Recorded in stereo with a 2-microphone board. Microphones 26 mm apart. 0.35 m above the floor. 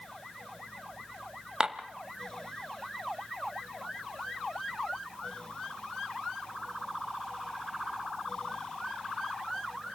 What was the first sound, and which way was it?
Dishes clattering, 30° right (ahead or behind).